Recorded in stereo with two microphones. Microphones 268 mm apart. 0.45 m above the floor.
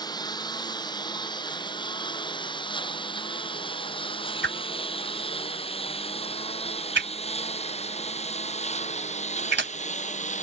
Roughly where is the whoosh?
Right.